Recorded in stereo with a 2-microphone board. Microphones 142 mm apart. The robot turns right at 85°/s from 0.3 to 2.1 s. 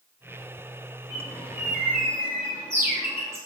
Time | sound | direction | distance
1.1 | a bird | 20° left (ahead or behind) | 0.8 m